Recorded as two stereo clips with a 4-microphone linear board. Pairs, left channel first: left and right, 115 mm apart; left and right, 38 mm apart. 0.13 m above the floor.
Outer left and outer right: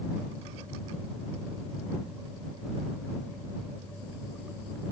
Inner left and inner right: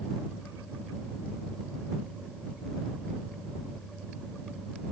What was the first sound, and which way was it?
Only background noise.